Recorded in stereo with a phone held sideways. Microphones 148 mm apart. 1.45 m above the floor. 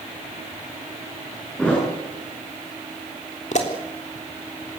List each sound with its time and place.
1.6 s a thud: 5° left (ahead or behind), 9 m
3.5 s a pop: 55° left (ahead or behind), 3.5 m